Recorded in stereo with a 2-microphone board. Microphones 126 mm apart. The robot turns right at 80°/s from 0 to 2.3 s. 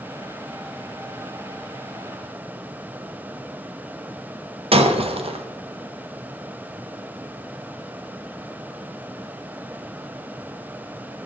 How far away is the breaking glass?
About 0.7 m.